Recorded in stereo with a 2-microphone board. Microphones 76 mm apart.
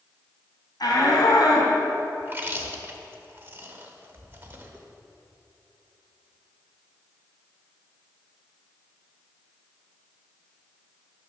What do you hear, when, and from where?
0.8 s a shout: 70° left (ahead or behind), 2.5 m
2.2 s chewing: 25° right (ahead or behind), 0.9 m